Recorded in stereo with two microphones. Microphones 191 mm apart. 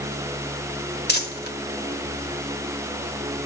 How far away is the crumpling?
About 1.6 m.